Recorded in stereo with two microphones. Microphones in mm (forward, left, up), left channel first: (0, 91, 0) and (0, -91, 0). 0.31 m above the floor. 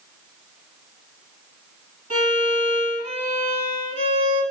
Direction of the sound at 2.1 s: 45° right (ahead or behind).